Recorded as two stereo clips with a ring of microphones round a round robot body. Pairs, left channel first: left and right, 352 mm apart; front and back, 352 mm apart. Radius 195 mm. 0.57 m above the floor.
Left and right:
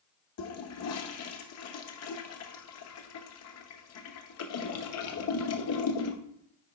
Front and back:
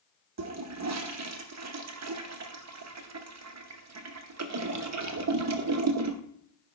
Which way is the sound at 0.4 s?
135° left.